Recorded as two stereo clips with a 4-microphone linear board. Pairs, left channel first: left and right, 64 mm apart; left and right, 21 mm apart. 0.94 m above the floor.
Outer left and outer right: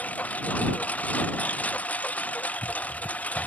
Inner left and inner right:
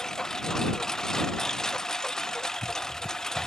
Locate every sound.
0.0 s a lawn mower: 25° left (ahead or behind)